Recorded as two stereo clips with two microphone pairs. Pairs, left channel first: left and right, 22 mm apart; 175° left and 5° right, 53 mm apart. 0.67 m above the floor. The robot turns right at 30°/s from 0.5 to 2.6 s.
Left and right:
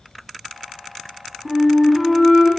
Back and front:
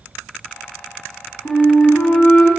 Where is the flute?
170° right, 0.8 m; by 2.5 s 140° right, 0.8 m.